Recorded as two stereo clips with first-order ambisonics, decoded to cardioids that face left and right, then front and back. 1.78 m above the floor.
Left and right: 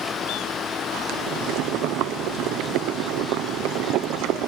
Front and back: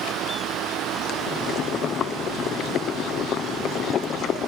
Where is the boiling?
55° right.